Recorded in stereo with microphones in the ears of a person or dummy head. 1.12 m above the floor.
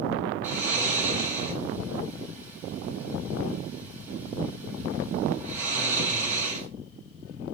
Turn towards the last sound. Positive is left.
turn(degrees=-10)  # may be behind; listen again after turning